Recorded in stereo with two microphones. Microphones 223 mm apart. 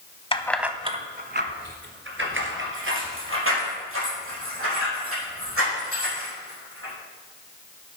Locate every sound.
0.3 s keys jangling: 25° left (ahead or behind), 0.7 m; by 6.9 s 70° right (ahead or behind), 7 m